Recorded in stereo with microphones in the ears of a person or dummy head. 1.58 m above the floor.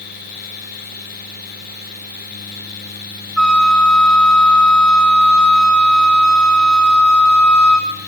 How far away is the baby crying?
No baby crying in this recording.